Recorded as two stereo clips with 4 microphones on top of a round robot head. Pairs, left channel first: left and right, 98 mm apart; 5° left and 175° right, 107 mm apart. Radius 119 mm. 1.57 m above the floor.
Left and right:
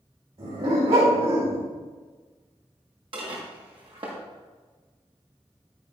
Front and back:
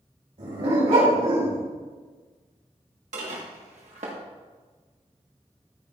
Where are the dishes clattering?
140° right, 1.8 m.